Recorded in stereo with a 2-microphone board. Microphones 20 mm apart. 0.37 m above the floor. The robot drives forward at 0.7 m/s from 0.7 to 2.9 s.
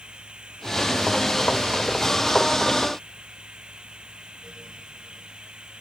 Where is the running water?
60° right (ahead or behind); by 5.8 s 55° right (ahead or behind).